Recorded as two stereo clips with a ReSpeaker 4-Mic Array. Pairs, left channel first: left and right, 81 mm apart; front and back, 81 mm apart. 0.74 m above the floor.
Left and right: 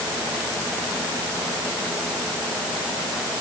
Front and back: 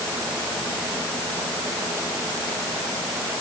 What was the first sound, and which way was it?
Only background noise.